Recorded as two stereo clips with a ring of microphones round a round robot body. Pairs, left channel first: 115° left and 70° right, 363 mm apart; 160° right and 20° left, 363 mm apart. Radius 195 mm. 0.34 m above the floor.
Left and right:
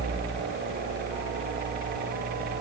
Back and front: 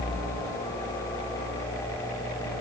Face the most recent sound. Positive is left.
No sound to turn to.